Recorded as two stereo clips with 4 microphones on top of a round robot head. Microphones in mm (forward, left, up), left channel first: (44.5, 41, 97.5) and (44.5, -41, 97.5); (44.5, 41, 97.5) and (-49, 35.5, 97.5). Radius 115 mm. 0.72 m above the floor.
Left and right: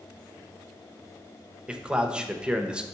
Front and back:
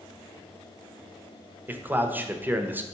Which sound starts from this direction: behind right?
A man speaking, at 1.7 s.